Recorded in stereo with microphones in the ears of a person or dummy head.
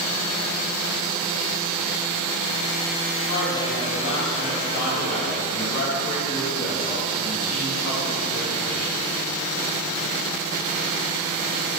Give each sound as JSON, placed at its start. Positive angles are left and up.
{"t": 3.3, "sound": "a woman speaking", "side_deg": 45, "distance_m": 2.0}